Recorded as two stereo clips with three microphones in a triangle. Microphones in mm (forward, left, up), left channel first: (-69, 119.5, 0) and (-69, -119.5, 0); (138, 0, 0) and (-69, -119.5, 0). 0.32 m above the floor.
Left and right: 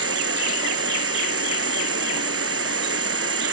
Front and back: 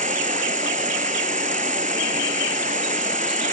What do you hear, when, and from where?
0.0 s an insect: 95° right